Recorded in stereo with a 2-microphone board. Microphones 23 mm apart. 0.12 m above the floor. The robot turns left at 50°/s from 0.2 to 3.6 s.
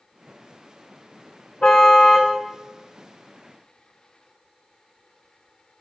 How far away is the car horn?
About 4 m.